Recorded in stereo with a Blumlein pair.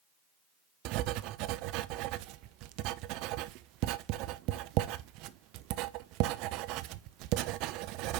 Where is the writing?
40° right, 0.5 m.